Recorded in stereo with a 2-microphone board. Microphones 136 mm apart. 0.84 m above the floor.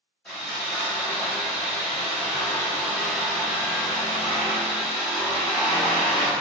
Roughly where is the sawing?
Centre.